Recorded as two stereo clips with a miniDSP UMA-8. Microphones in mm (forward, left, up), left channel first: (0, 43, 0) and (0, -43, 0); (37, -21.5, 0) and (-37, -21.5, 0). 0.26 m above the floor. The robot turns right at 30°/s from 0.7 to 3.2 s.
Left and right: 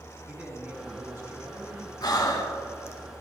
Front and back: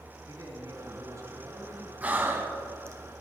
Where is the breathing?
115° left, 1.2 m; by 3.0 s 145° left, 1.2 m.